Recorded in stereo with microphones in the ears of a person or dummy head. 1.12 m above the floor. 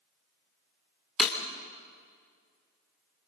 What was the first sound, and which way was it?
Breaking glass, 5° left (ahead or behind).